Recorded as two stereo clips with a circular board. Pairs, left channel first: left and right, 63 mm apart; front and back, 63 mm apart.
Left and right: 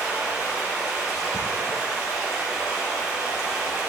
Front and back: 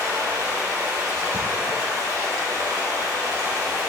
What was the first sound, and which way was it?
Running water, 175° right.